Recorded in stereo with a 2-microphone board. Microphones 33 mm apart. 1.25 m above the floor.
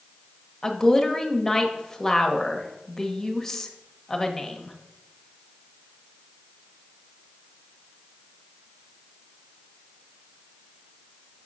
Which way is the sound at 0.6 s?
10° left (ahead or behind).